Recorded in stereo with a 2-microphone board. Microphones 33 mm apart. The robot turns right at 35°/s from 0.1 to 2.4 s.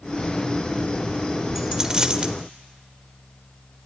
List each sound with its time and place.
1.6 s a dropped coin: 15° right (ahead or behind), 0.9 m; by 2.4 s 35° right (ahead or behind), 0.9 m